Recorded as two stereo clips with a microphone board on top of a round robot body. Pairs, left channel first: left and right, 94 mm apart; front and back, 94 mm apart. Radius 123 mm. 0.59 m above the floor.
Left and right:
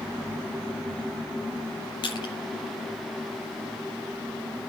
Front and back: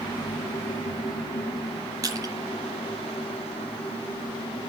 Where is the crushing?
125° left, 7 m.